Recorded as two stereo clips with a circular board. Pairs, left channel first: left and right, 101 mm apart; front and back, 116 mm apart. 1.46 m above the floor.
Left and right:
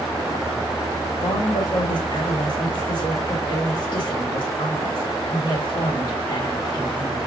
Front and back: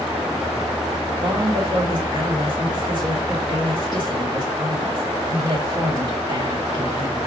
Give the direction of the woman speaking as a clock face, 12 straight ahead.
8 o'clock.